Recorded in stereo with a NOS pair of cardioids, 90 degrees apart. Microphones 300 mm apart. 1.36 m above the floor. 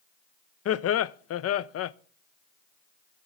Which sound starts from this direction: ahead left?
Laughter, at 0.7 s.